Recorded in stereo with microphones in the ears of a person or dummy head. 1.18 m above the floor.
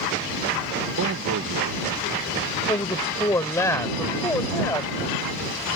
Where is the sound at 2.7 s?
15° left (ahead or behind).